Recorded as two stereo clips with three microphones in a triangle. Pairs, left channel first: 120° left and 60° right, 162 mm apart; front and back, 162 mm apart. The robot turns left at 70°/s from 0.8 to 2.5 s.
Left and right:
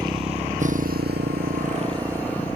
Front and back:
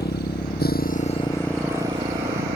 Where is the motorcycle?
5° left; by 2.6 s 160° right.